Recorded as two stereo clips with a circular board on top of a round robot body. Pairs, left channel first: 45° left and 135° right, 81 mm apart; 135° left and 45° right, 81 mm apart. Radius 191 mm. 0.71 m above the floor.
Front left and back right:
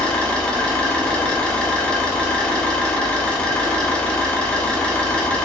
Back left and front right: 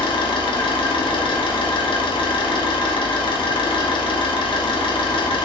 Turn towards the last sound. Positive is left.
turn(degrees=125)